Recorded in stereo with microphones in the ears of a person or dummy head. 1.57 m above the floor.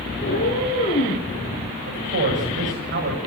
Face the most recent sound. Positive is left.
turn(degrees=-50)  # may be behind; listen again after turning